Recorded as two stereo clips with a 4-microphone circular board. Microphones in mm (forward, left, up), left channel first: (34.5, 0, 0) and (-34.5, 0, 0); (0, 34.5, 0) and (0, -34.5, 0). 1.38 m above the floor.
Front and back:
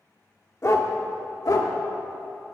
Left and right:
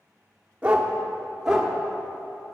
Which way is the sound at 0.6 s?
30° right.